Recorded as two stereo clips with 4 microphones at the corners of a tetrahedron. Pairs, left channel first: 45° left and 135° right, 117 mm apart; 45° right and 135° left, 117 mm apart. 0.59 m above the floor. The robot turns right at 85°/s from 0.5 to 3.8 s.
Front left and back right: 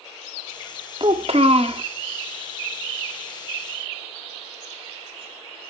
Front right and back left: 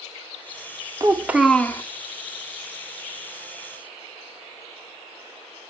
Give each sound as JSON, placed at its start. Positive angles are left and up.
{"t": 1.0, "sound": "a child speaking", "azimuth_deg": -175, "distance_m": 0.6}